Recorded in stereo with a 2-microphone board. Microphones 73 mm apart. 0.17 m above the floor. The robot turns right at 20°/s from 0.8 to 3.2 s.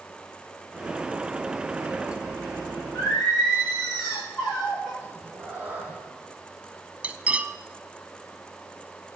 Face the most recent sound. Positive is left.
turn(degrees=-20)  # may be behind; listen again after turning